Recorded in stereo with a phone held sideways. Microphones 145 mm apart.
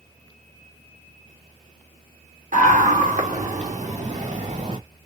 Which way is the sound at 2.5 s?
65° right (ahead or behind).